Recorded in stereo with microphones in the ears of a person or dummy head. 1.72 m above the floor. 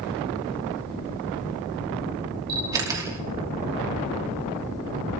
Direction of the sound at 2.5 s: 20° right (ahead or behind).